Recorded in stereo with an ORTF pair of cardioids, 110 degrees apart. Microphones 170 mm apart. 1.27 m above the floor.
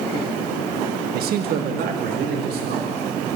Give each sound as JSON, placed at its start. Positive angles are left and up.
{"t": 1.1, "sound": "a man speaking", "azimuth_deg": -65, "distance_m": 1.6}